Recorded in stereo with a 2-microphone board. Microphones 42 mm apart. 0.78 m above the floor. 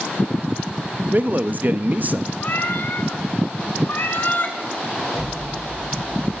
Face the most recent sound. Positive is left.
turn(degrees=-20)  # may be behind; listen again after turning